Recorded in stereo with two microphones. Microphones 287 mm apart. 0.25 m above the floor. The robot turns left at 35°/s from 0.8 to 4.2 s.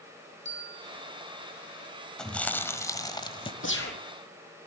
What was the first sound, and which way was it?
A bell, 40° right (ahead or behind).